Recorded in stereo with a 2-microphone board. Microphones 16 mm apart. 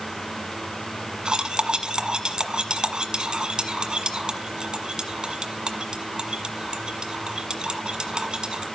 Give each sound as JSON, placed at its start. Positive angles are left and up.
{"t": 1.2, "sound": "cutlery clinking", "side_deg": -55, "distance_m": 1.4}